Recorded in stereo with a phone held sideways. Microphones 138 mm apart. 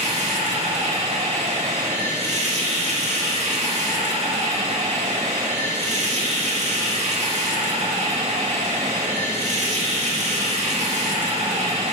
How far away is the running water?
About 1.7 m.